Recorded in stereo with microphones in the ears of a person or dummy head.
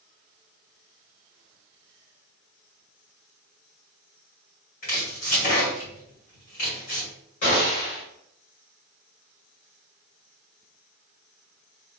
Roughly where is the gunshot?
Left.